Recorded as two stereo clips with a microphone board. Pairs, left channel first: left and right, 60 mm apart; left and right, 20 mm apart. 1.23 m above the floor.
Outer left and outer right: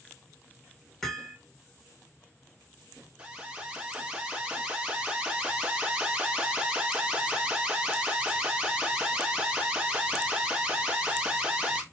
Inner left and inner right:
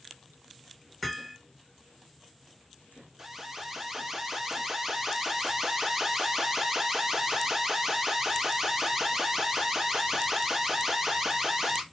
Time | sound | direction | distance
1.0 | hammering | 5° left (ahead or behind) | 1.3 m
3.2 | an alarm | 15° right (ahead or behind) | 1.0 m